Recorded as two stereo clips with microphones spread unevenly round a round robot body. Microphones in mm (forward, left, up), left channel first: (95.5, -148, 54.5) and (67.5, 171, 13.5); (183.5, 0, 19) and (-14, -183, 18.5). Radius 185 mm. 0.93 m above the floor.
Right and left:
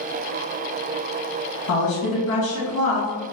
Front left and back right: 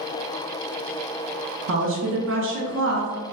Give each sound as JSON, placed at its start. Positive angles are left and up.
{"t": 1.7, "sound": "a woman speaking", "azimuth_deg": -125, "distance_m": 0.9}